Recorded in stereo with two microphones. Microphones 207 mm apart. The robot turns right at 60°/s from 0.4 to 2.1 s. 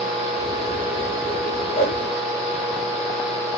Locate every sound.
1.8 s a whoosh: 40° left (ahead or behind), 3 m; by 2.0 s 55° left (ahead or behind), 3 m